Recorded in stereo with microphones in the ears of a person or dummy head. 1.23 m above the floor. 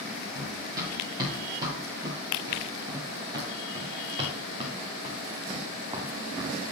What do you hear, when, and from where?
0.3 s running footsteps: 20° right (ahead or behind), 6.5 m; by 6.6 s 25° right (ahead or behind), 3 m